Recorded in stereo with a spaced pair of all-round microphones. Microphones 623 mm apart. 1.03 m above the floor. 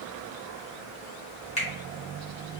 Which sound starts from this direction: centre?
A finger snap, at 1.6 s.